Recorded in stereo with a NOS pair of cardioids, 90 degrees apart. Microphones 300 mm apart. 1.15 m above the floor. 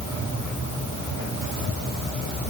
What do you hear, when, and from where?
Only background noise.